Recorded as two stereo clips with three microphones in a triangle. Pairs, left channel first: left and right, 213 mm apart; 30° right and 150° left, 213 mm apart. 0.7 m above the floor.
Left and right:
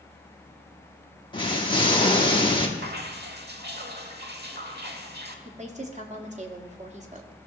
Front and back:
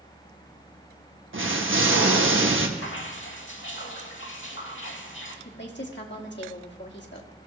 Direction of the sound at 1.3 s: 155° left.